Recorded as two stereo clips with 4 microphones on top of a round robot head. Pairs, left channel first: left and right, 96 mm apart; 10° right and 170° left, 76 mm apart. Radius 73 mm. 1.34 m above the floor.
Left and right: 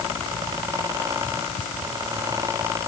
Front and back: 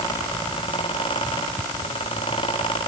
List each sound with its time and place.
Only background noise.